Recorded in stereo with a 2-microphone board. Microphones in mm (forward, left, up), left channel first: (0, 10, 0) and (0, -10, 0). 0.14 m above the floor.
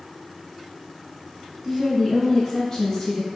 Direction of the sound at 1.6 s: 5° right (ahead or behind).